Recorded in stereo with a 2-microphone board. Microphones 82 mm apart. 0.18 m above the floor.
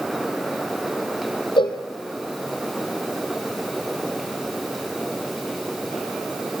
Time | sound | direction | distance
1.6 | a cowbell | 80° left | 2.5 m